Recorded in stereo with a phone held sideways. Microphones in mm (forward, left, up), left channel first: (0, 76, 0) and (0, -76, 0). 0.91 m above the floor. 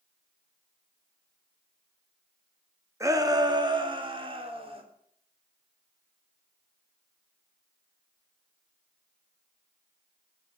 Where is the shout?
20° right (ahead or behind), 1.5 m; by 4.8 s 40° right (ahead or behind), 3 m.